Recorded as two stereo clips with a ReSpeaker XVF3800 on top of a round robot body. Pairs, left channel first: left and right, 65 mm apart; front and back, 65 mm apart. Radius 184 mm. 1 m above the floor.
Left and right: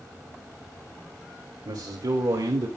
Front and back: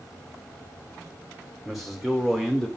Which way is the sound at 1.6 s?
95° right.